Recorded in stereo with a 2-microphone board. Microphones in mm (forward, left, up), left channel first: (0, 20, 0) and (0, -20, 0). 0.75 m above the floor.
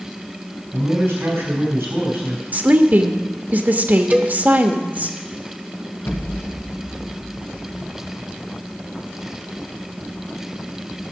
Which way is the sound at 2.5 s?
40° right (ahead or behind).